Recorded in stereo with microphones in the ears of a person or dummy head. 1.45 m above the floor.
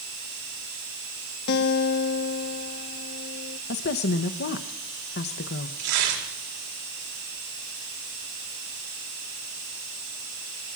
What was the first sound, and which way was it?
A guitar, 60° left (ahead or behind).